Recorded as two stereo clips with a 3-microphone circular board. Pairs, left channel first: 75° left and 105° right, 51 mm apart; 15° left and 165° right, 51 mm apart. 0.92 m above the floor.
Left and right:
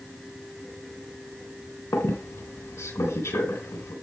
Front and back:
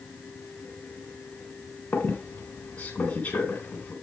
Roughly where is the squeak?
Left.